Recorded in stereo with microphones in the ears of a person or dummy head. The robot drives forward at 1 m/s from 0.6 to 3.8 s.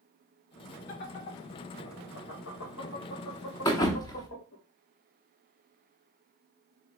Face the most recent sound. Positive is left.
turn(degrees=20)  # may be behind; listen again after turning